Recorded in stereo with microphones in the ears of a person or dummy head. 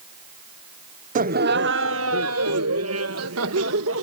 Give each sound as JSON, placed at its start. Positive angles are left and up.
{"t": 1.1, "sound": "laughter", "side_deg": -40}